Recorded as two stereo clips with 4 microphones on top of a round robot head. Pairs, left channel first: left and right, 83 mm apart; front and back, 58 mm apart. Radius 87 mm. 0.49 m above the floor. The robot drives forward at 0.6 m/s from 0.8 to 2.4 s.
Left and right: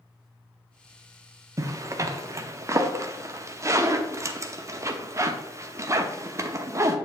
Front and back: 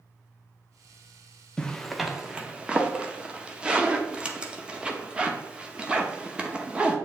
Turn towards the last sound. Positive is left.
turn(degrees=-120)